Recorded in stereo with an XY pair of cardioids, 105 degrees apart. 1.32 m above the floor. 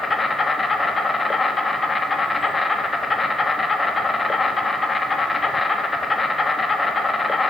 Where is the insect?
25° left, 1.3 m.